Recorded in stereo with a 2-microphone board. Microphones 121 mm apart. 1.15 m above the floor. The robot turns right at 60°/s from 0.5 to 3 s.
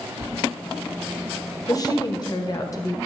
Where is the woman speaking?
60° left, 0.7 m; by 3.0 s 135° left, 0.7 m.